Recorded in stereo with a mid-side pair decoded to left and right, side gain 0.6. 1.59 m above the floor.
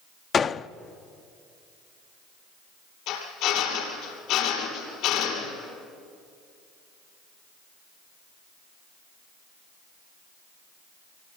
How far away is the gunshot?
About 0.6 m.